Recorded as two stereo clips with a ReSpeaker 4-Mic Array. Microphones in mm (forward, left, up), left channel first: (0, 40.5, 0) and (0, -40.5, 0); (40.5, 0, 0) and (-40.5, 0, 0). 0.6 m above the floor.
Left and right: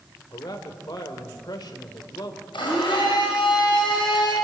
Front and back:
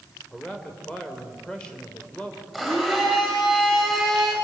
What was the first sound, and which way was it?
A man speaking, 75° left.